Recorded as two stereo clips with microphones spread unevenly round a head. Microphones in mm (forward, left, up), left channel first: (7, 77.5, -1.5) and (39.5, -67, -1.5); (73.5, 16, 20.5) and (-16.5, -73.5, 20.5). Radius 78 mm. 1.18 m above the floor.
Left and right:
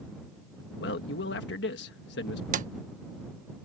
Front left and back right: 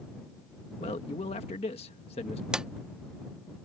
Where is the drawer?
50° right.